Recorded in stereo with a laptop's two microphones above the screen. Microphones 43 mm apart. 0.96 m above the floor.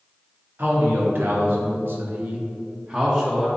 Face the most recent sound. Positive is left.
turn(degrees=-15)  # may be behind; listen again after turning